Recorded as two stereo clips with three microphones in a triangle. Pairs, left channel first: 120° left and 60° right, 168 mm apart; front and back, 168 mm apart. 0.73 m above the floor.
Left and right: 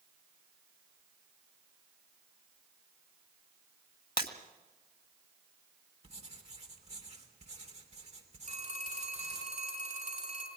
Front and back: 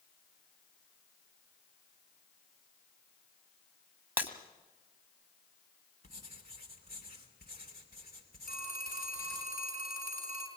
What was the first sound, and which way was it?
Breaking glass, 100° left.